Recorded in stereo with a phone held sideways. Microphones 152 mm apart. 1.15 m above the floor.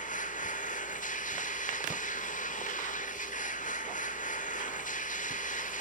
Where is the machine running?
60° left (ahead or behind), 2.0 m.